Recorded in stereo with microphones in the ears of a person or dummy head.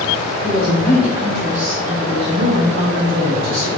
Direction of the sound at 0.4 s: 20° left (ahead or behind).